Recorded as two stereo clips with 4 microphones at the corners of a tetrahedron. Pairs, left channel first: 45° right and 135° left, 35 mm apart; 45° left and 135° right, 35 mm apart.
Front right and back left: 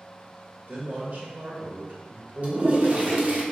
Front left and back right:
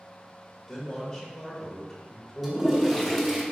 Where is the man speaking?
115° left, 1.7 m.